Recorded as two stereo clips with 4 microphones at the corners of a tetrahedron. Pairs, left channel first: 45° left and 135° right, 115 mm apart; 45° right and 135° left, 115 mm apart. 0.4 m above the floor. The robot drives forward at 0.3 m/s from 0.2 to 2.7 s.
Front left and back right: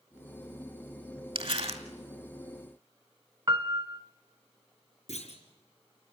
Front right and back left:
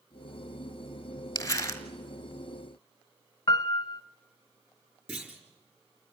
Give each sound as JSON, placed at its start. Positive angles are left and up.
{"t": 1.4, "sound": "crumpling", "azimuth_deg": -105, "distance_m": 1.6}
{"t": 3.5, "sound": "a piano", "azimuth_deg": -90, "distance_m": 0.8}
{"t": 5.1, "sound": "a clunk", "azimuth_deg": 60, "distance_m": 4.0}